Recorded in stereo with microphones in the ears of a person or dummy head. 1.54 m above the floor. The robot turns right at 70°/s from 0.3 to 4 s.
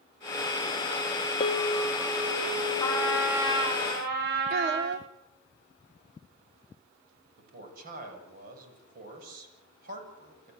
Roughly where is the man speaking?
Right.